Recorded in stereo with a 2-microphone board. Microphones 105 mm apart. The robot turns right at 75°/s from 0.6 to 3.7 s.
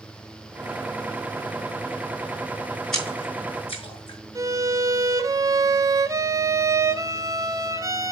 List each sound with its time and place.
2.9 s a splash: 5° left (ahead or behind), 5 m; by 4.2 s 60° left (ahead or behind), 5 m
4.3 s a violin: 30° right (ahead or behind), 0.9 m